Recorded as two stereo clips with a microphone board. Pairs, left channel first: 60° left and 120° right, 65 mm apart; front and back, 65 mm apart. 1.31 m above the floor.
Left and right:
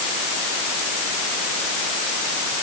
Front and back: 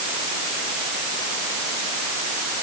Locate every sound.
Only background noise.